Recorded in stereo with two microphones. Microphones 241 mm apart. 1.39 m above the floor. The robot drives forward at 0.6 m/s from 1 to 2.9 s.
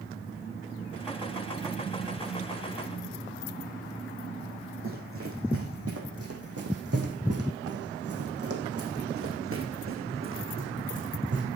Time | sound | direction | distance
4.8 | running footsteps | 60° right (ahead or behind) | 4.5 m